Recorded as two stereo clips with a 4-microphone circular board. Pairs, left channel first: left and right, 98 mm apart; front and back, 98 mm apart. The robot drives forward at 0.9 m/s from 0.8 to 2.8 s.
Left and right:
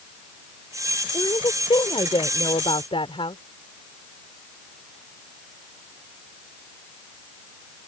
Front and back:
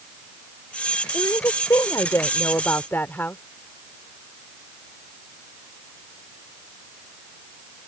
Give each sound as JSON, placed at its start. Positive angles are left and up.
{"t": 1.1, "sound": "a woman speaking", "azimuth_deg": 50}